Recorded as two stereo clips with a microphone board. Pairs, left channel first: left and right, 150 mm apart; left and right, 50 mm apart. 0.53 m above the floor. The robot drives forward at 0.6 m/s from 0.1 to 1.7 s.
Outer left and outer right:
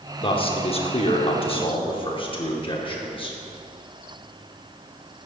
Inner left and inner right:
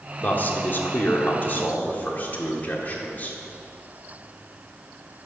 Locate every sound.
0.2 s a man speaking: 35° left (ahead or behind), 0.9 m